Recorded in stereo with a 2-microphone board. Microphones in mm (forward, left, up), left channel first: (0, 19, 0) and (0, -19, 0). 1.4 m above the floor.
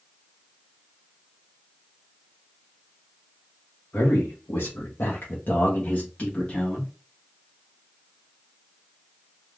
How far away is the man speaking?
About 1.0 m.